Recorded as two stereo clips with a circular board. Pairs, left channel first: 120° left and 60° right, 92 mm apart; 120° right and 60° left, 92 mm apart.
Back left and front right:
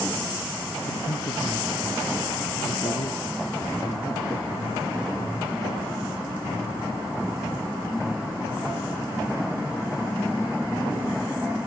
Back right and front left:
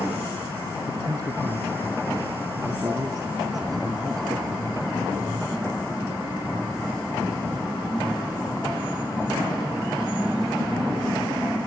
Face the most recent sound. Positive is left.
turn(degrees=105)